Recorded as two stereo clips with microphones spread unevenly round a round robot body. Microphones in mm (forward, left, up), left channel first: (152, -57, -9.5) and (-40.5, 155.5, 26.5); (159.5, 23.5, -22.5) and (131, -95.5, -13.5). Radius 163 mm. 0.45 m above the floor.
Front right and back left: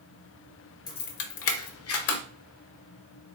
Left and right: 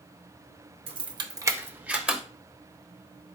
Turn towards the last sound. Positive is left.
turn(degrees=-15)